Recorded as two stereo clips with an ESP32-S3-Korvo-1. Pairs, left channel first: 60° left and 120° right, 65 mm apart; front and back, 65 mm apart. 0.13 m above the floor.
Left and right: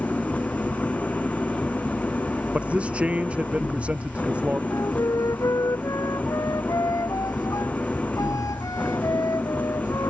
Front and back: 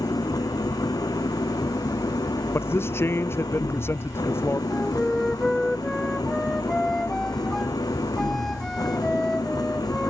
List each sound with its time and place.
0.0 s an engine running: 5° right
2.5 s a man speaking: 50° right
4.7 s a flute: 85° left